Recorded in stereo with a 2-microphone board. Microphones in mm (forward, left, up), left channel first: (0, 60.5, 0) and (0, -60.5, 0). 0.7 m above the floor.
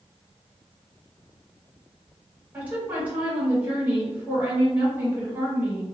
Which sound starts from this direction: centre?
A woman speaking, at 2.5 s.